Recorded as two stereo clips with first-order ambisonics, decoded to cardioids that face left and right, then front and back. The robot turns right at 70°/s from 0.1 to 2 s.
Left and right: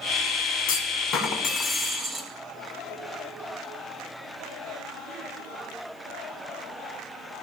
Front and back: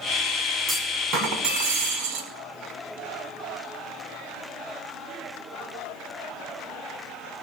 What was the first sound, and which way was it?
A clunk, 115° left.